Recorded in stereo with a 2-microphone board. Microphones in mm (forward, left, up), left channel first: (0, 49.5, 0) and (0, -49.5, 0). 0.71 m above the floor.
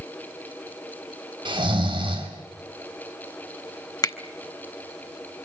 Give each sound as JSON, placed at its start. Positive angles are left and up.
{"t": 1.4, "sound": "snoring", "side_deg": -55, "distance_m": 4.5}
{"t": 4.0, "sound": "a finger snap", "side_deg": 40, "distance_m": 1.2}